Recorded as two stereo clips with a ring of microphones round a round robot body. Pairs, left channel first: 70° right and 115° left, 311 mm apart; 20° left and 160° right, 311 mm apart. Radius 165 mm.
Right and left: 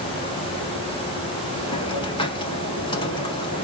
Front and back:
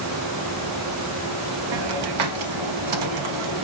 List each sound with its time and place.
1.7 s a hiss: 145° right, 0.6 m